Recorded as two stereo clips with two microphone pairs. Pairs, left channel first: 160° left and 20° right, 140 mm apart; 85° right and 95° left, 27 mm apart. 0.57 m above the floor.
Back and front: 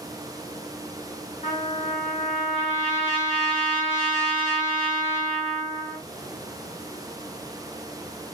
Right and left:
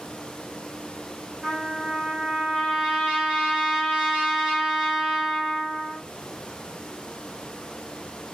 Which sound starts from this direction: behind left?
A trumpet, at 1.4 s.